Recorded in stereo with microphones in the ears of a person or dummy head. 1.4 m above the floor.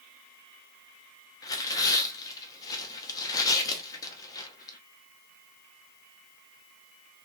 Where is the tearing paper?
20° left (ahead or behind), 1.3 m.